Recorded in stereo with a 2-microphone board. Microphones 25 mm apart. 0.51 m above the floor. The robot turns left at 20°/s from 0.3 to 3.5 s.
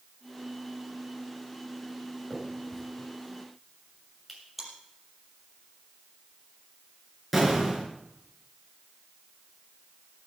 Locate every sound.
2.3 s a finger snap: 30° left (ahead or behind), 7 m; by 4.4 s 5° left (ahead or behind), 7 m
4.6 s chewing: centre (ahead or behind), 5.5 m
7.3 s an explosion: centre (ahead or behind), 4.5 m